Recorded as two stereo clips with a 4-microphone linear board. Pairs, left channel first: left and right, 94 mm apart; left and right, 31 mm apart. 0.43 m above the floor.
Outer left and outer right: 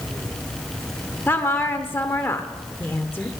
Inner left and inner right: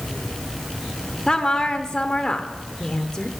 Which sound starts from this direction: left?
A woman speaking, at 1.3 s.